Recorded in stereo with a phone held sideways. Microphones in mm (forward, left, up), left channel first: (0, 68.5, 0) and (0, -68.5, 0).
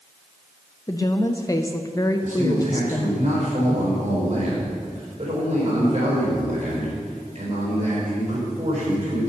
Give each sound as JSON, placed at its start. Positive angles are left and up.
{"t": 0.9, "sound": "a woman speaking", "side_deg": 25, "distance_m": 0.5}
{"t": 2.2, "sound": "a man speaking", "side_deg": -60, "distance_m": 4.0}